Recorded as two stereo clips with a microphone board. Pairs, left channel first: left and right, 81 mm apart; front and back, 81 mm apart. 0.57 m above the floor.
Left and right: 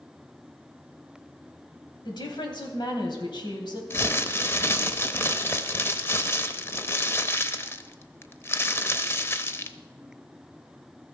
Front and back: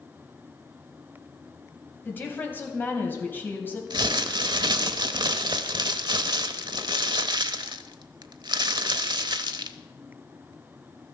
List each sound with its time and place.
2.0 s a woman speaking: 65° left, 3 m
3.9 s crumpling: 150° left, 0.7 m